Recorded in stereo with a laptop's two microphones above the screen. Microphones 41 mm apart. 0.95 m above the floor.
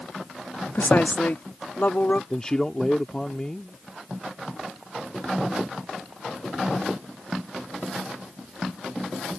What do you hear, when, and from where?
0.8 s a woman speaking: 55° left (ahead or behind); by 2.2 s 50° left (ahead or behind)
2.3 s a man speaking: 20° left (ahead or behind)